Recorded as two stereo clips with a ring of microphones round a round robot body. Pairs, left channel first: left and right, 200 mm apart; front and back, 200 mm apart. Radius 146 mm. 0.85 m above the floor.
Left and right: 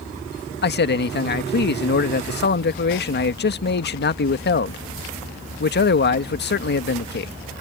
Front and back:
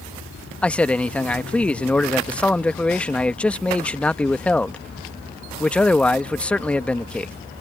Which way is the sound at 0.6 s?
85° left.